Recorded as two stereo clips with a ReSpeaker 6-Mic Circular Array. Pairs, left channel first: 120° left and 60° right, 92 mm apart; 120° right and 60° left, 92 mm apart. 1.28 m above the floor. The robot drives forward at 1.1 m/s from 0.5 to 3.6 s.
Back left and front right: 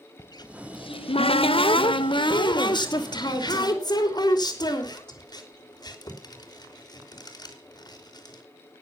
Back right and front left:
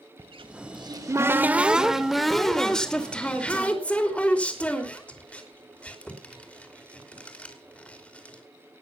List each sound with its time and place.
0.2 s a cupboard door: 80° left, 1.0 m; by 8.4 s 165° left, 3.5 m